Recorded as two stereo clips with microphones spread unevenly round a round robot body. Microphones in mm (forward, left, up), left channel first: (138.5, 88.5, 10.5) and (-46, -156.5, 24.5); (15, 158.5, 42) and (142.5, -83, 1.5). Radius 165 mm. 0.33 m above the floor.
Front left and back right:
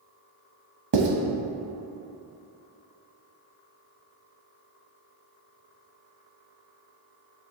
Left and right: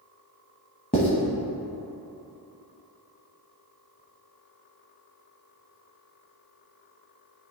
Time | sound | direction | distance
0.9 | writing | 165° right | 0.9 m